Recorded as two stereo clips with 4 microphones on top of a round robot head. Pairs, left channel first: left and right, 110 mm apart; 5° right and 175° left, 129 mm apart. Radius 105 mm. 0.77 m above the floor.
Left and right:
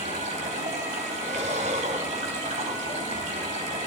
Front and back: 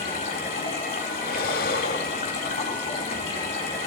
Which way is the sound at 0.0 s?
55° right.